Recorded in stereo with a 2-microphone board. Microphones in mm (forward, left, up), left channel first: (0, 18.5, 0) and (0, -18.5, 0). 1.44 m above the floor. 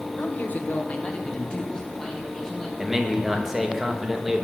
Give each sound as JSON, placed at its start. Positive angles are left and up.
{"t": 0.2, "sound": "a man speaking", "side_deg": 65, "distance_m": 1.0}
{"t": 2.8, "sound": "a man speaking", "side_deg": -10, "distance_m": 1.3}